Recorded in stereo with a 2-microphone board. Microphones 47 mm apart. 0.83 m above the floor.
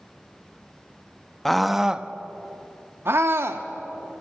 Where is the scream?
5° left (ahead or behind), 0.8 m; by 3.6 s 70° right (ahead or behind), 1.5 m.